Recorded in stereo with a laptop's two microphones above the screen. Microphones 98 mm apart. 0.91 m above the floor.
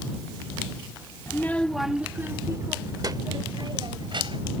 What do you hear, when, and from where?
1.3 s a child speaking: 30° left (ahead or behind); by 4.6 s 60° right (ahead or behind)